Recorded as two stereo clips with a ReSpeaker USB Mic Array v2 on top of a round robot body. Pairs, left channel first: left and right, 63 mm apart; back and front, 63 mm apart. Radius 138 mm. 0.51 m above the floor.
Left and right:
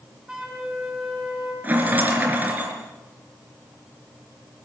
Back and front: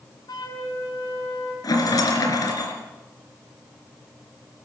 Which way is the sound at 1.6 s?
155° right.